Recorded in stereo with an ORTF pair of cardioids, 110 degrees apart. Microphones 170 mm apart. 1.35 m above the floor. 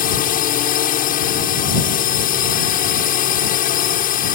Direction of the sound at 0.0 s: 60° left.